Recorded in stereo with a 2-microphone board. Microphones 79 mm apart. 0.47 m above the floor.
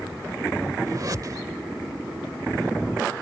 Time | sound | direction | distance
0.9 | a whoosh | 50° right (ahead or behind) | ?